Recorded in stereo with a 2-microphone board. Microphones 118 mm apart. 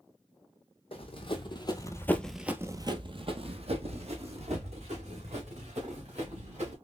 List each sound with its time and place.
0.9 s running footsteps: 50° left (ahead or behind), 1.3 m; by 6.7 s 70° right (ahead or behind), 3.5 m